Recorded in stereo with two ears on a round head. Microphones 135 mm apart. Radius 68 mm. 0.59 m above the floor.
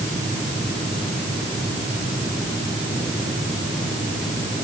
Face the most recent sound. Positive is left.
No sound to turn to.